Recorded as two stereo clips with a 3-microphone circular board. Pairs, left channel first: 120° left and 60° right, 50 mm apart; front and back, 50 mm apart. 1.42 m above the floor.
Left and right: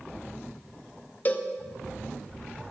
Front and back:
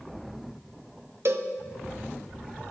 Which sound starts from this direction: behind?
A cowbell, at 1.2 s.